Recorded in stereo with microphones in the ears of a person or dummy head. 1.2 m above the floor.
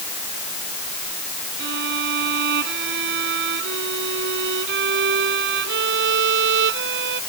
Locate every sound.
1.6 s a violin: 65° right (ahead or behind)